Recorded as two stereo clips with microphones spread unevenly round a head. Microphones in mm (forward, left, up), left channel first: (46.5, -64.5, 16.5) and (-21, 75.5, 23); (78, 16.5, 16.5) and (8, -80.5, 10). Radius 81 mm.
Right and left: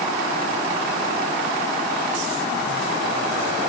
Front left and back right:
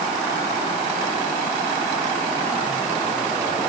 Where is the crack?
I don't hear a crack.